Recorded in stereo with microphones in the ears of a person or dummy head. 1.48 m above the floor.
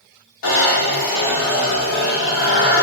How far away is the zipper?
About 1.0 m.